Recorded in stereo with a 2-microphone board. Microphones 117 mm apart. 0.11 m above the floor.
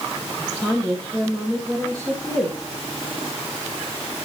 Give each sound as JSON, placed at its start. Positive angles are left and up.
{"t": 0.4, "sound": "a woman speaking", "side_deg": -25, "distance_m": 4.0}